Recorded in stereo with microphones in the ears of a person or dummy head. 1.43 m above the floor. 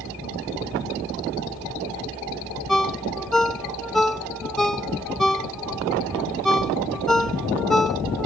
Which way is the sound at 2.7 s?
Centre (ahead or behind).